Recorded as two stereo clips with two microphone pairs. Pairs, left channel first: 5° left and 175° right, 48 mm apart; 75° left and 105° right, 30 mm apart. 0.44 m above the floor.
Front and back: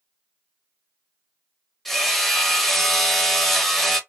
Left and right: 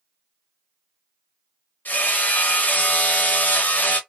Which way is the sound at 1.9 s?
90° left.